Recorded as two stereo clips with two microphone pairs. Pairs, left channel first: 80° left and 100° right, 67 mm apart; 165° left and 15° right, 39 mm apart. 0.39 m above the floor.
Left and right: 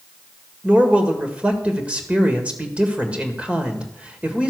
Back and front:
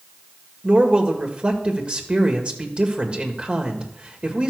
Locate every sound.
0.6 s a man speaking: 45° right, 1.6 m